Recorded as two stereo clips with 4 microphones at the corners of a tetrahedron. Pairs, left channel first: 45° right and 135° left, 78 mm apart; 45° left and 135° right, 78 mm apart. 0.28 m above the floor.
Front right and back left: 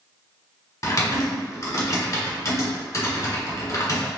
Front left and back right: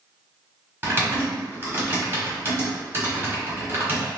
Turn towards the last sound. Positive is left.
turn(degrees=-80)